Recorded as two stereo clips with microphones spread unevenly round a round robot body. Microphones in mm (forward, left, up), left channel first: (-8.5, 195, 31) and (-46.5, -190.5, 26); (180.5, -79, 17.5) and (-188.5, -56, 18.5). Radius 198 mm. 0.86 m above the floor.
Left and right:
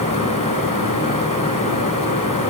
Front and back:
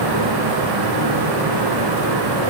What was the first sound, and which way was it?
Only background noise.